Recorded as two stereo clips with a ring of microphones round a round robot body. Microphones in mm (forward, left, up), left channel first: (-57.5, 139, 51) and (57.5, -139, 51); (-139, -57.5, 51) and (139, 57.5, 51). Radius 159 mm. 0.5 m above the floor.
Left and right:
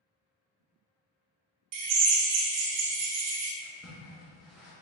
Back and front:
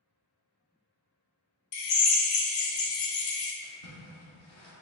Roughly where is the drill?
Right.